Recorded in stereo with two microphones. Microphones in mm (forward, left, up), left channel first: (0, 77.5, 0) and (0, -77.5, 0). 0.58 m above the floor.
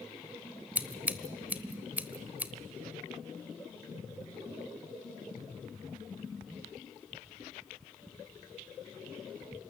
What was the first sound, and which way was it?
Scissors, 10° right (ahead or behind).